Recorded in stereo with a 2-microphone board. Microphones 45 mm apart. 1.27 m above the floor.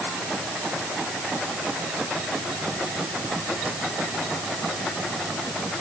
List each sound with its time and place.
Only background noise.